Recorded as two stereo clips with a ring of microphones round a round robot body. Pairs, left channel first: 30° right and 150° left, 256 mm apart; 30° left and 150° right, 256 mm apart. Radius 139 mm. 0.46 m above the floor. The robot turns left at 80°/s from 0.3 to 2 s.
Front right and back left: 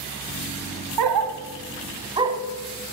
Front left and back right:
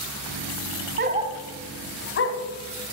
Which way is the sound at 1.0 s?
160° left.